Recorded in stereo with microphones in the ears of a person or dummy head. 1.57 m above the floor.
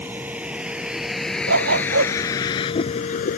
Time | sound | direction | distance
0.0 | a vehicle | 10° right (ahead or behind) | ?
1.5 | a dog barking | 70° right (ahead or behind) | ?